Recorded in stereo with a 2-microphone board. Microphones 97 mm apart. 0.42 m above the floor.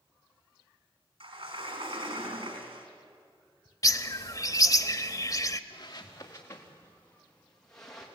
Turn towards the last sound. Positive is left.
turn(degrees=5)  # may be behind; listen again after turning